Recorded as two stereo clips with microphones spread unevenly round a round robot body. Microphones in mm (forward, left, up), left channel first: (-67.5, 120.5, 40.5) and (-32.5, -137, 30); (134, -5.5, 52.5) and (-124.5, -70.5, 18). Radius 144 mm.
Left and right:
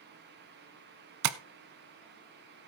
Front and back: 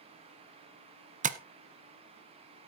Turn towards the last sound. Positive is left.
turn(degrees=-100)